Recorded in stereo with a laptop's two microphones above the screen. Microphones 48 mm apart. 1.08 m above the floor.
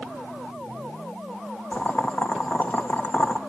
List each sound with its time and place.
1.7 s boiling: 35° left (ahead or behind), 1.8 m